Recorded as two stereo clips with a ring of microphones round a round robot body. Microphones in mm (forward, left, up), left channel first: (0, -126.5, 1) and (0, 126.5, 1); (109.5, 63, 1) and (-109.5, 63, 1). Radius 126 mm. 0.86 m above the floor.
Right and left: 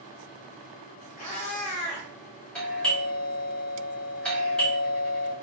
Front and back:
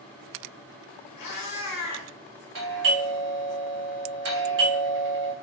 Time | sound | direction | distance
1.2 | a cat meowing | 25° right | 1.0 m
2.5 | a doorbell | 175° right | 1.2 m